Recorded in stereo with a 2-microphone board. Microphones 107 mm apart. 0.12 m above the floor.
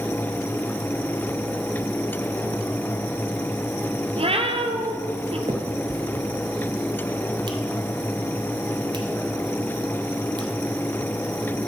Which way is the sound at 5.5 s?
45° right (ahead or behind).